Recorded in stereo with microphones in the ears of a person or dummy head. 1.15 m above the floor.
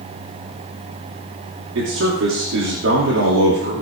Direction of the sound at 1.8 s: 70° right (ahead or behind).